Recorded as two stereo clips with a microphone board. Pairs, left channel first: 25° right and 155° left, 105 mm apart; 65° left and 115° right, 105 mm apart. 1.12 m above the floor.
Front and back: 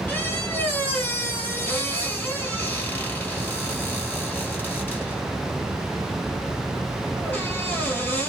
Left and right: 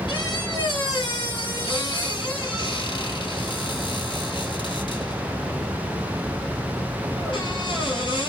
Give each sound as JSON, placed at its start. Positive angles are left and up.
{"t": 0.1, "sound": "a squeak", "azimuth_deg": 45, "distance_m": 1.7}